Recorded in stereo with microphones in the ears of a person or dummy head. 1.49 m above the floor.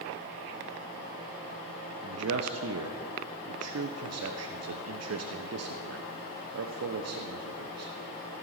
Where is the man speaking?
80° right, 0.9 m.